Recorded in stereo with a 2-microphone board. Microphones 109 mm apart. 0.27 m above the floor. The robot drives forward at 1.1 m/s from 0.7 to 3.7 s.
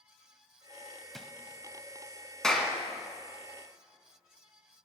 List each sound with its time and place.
1.1 s a drawer: centre (ahead or behind), 0.6 m
2.4 s a clap: 5° left (ahead or behind), 1.8 m